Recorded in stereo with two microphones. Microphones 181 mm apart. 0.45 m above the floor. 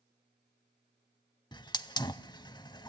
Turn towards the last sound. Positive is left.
turn(degrees=20)  # may be behind; listen again after turning